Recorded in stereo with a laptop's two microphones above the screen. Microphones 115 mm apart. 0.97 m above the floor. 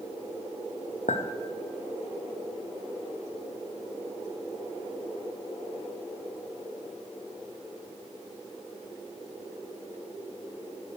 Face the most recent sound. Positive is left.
turn(degrees=80)